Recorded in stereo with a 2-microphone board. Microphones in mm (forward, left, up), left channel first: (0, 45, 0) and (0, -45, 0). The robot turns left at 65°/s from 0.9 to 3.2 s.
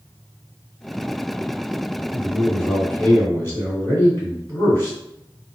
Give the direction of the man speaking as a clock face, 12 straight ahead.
5 o'clock.